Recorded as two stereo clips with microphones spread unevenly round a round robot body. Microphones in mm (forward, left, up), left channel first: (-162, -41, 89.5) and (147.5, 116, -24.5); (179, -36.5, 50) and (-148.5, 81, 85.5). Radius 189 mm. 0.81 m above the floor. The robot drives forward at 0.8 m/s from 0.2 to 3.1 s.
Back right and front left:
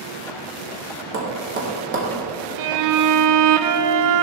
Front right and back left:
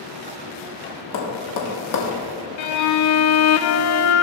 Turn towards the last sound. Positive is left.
turn(degrees=20)